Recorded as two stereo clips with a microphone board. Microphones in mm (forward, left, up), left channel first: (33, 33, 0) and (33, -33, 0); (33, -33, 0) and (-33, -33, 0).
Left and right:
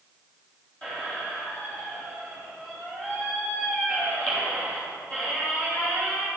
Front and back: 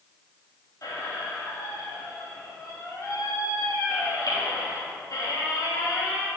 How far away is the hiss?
I don't hear a hiss.